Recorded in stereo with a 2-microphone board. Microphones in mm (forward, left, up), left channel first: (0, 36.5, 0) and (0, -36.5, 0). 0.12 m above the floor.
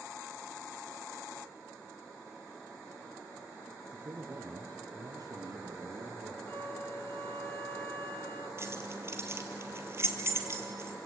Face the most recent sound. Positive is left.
turn(degrees=-40)  # may be behind; listen again after turning